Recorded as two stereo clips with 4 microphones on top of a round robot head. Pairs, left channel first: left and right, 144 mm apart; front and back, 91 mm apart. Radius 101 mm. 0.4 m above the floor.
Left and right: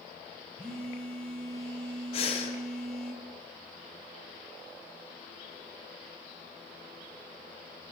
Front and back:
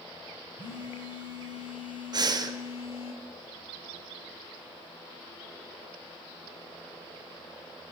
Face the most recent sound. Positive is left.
turn(degrees=140)